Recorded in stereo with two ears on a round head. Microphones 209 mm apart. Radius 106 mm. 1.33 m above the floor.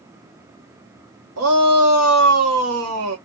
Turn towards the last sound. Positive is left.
turn(degrees=-65)  # may be behind; listen again after turning